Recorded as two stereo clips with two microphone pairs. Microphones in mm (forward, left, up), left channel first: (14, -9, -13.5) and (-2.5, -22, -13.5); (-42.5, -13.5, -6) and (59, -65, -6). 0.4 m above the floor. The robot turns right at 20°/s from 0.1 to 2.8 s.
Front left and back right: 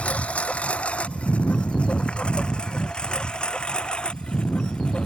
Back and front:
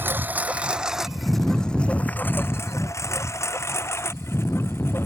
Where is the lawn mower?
45° left; by 5.1 s 80° left.